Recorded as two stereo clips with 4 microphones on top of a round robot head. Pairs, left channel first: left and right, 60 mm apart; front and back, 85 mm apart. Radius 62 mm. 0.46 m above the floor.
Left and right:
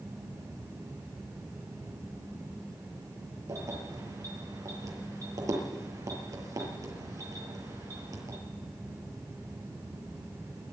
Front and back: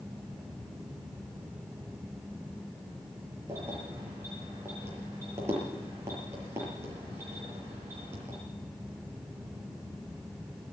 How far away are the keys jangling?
About 8 m.